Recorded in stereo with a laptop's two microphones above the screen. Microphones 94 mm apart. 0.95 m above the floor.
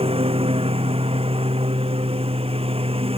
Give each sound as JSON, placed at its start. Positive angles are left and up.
{"t": 0.0, "sound": "a lawn mower", "side_deg": -85}